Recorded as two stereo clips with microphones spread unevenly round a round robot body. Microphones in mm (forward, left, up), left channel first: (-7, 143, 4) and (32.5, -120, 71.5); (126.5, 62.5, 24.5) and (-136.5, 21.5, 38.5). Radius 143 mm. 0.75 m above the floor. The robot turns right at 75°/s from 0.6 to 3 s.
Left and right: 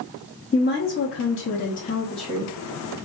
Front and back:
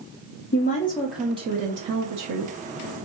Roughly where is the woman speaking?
Ahead left.